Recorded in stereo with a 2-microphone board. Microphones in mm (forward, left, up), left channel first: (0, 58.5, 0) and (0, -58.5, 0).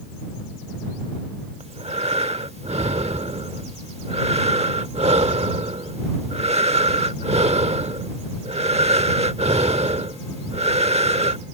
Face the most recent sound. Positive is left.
turn(degrees=-60)  # may be behind; listen again after turning